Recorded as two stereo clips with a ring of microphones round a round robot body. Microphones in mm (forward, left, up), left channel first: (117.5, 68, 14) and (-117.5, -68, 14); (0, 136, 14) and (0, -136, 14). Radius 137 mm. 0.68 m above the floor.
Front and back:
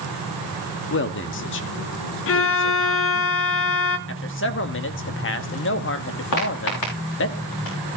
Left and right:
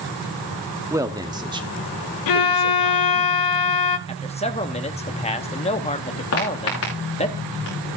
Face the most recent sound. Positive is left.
turn(degrees=40)